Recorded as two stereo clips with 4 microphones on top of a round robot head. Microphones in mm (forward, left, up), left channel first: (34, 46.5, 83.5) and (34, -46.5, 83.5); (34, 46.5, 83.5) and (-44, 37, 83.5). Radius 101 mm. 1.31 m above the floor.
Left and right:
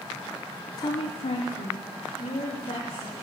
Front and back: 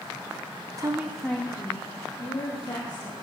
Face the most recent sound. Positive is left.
turn(degrees=50)